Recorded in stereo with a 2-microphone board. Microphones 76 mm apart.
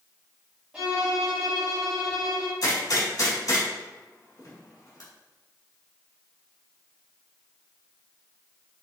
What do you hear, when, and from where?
0.7 s a violin: 15° right (ahead or behind), 1.9 m
2.6 s a gunshot: 50° left (ahead or behind), 1.8 m